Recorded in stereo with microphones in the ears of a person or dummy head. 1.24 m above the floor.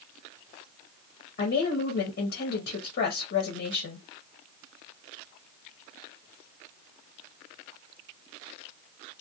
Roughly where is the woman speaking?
Left.